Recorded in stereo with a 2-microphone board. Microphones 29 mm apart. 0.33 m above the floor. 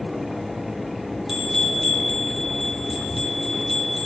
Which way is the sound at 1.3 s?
10° right (ahead or behind).